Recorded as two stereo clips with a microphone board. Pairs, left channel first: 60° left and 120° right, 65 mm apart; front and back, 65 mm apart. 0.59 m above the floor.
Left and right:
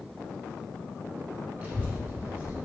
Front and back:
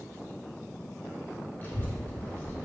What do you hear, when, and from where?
1.6 s a child speaking: 60° right, 1.0 m